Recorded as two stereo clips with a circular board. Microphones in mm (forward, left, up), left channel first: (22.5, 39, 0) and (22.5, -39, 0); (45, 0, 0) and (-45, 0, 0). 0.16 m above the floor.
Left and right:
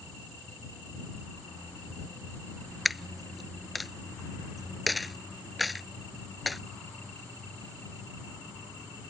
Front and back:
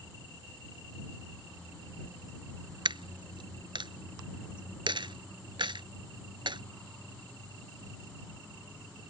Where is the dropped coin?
Straight behind.